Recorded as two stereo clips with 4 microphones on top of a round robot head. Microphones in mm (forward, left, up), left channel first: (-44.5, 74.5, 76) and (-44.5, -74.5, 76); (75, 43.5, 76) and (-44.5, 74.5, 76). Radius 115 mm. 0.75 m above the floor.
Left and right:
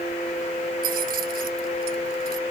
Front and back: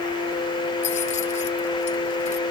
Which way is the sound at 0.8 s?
55° right.